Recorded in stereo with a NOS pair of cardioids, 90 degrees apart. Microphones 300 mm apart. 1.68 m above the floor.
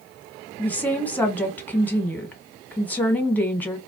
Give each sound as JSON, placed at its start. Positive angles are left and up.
{"t": 0.6, "sound": "a woman speaking", "azimuth_deg": 5, "distance_m": 1.3}